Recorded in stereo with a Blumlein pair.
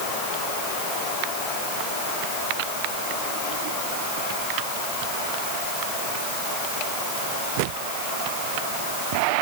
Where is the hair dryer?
No hair dryer in this recording.